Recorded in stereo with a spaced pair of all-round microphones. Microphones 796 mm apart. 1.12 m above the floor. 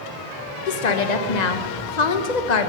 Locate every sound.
0.7 s a woman speaking: 60° left (ahead or behind), 1.0 m